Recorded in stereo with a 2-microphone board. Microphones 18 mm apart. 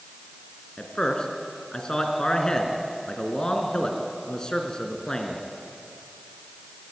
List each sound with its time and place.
0.8 s a man speaking: 45° left (ahead or behind), 3 m